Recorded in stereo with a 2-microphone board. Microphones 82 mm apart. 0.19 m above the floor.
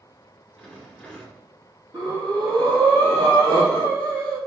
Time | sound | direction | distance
0.6 | a rattle | 10° left (ahead or behind) | 1.1 m
1.9 | breathing | 65° right (ahead or behind) | 1.8 m